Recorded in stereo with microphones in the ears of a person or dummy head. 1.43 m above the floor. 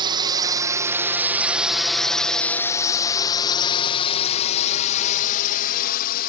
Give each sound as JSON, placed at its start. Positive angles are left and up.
{"t": 0.0, "sound": "a drone", "side_deg": -25}